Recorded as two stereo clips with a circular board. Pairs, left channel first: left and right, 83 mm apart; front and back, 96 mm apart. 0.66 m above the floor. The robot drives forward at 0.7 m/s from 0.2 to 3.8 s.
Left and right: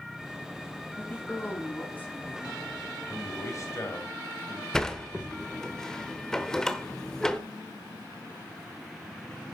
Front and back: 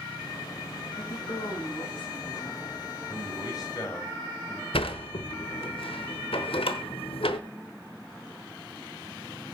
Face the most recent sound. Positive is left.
turn(degrees=5)